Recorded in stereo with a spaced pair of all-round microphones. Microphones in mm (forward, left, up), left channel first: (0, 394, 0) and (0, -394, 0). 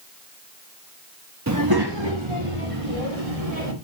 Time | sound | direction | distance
1.5 | a child speaking | 20° right (ahead or behind) | 0.9 m